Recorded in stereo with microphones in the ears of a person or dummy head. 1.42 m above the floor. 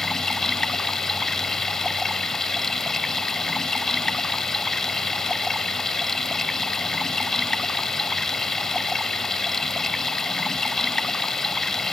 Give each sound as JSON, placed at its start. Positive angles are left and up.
{"t": 0.0, "sound": "running water", "side_deg": 0}